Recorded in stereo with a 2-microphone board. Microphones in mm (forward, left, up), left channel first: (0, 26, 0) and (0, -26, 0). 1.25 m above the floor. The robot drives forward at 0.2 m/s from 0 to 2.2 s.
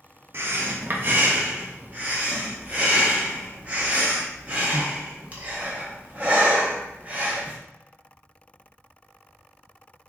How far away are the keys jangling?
No keys jangling in this recording.